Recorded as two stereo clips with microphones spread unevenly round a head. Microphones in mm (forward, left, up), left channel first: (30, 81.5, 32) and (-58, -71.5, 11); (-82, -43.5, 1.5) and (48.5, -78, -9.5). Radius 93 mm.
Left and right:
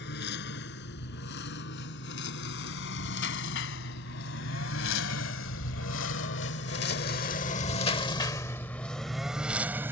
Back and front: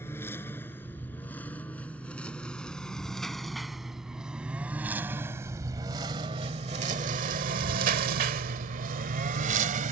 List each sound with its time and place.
0.0 s a lawn mower: 85° left; by 9.9 s 40° right